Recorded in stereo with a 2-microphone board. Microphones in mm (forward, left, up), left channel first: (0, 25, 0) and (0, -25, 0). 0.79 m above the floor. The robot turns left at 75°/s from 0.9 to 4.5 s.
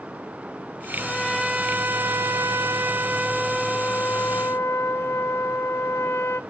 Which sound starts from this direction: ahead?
A trumpet, at 1.0 s.